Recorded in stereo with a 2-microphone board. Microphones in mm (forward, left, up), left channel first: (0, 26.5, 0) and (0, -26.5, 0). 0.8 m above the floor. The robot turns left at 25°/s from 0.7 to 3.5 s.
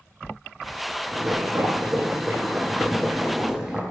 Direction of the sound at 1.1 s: 110° right.